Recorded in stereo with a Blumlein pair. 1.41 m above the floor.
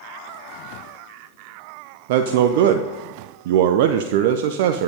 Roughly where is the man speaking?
Ahead right.